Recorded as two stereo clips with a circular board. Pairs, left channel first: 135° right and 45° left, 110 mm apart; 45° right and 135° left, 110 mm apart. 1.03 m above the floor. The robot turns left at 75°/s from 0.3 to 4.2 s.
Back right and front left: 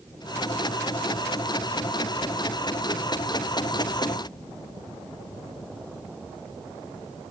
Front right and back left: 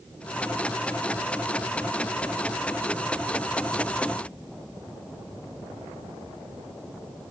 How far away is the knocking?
No knocking in this recording.